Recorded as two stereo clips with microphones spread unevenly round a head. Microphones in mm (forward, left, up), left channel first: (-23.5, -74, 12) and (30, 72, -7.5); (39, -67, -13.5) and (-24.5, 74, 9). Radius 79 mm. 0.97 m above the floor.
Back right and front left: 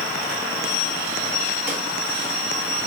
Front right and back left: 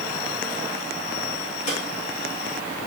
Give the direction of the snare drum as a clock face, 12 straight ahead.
12 o'clock.